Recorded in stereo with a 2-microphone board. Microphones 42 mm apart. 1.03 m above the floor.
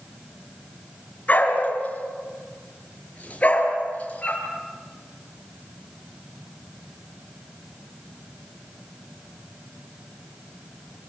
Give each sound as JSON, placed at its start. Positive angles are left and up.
{"t": 1.3, "sound": "a dog barking", "side_deg": 35, "distance_m": 4.0}